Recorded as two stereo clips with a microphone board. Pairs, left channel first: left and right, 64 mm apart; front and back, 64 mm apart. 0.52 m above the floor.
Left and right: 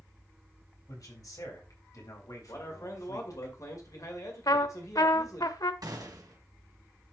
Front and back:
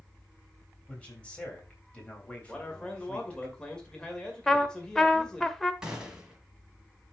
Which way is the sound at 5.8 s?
100° right.